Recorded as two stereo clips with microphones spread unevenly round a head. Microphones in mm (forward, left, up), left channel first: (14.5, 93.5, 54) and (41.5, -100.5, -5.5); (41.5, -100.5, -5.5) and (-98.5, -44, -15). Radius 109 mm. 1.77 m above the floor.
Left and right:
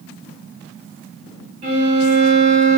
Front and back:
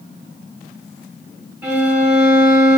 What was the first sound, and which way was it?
A violin, 120° right.